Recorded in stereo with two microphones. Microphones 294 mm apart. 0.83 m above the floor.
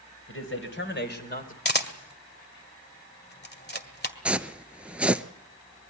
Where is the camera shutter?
30° left (ahead or behind), 1.9 m.